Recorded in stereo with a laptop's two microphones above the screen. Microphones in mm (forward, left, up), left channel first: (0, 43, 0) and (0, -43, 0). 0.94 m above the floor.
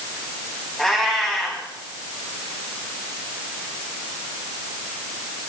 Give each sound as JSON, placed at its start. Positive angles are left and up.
{"t": 0.8, "sound": "a cat meowing", "side_deg": 5, "distance_m": 2.5}